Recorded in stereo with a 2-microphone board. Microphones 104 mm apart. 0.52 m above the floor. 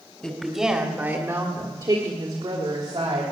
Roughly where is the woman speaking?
Centre.